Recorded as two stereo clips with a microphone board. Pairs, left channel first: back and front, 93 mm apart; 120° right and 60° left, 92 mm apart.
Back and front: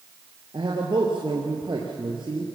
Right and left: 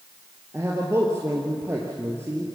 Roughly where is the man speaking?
Ahead.